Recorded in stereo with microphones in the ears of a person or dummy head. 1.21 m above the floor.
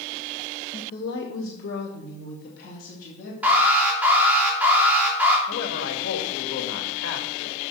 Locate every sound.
0.7 s a woman speaking: 35° left (ahead or behind), 1.0 m; by 3.3 s 50° left (ahead or behind), 3 m
3.4 s an alarm: 5° right (ahead or behind), 2.5 m
5.5 s a man speaking: 80° left, 1.8 m